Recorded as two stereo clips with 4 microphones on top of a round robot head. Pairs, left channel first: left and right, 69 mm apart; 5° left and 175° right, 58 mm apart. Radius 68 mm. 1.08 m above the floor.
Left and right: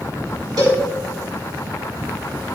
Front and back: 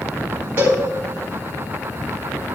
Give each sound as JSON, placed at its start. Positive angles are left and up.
{"t": 0.6, "sound": "a cowbell", "azimuth_deg": -110, "distance_m": 3.5}